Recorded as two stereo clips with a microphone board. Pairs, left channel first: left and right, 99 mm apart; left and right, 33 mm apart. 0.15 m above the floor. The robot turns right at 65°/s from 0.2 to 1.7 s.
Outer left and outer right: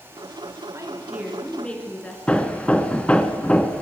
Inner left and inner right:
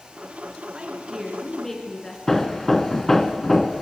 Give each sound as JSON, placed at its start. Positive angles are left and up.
{"t": 0.7, "sound": "a woman speaking", "azimuth_deg": -45, "distance_m": 2.0}
{"t": 2.3, "sound": "hammering", "side_deg": 10, "distance_m": 0.8}